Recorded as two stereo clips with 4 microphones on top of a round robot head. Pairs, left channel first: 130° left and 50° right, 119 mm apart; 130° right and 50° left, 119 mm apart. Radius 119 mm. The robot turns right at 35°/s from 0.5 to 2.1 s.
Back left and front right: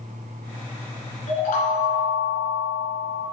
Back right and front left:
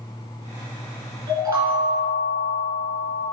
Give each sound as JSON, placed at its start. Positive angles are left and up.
{"t": 1.3, "sound": "a chime", "azimuth_deg": 110, "distance_m": 2.0}